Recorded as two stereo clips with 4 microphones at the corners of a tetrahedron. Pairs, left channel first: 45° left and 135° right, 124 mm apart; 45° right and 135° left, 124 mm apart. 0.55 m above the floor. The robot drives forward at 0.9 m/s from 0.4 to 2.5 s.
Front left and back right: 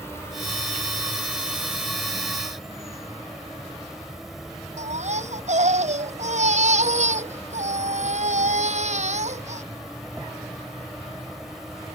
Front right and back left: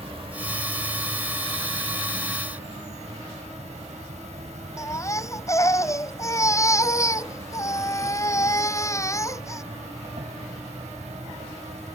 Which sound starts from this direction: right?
A baby crying, at 4.8 s.